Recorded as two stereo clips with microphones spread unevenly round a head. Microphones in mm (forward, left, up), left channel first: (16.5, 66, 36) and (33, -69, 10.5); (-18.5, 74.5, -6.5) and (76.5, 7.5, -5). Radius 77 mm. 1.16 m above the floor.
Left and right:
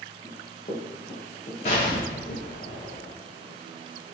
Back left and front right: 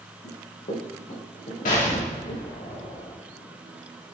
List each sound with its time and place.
0.2 s running footsteps: 155° left, 4 m; by 2.4 s 130° left, 3.5 m
1.6 s an explosion: 145° left, 3 m